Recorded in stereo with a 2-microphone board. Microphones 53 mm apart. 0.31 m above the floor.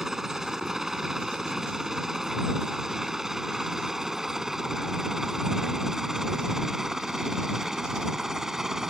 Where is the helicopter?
10° right (ahead or behind).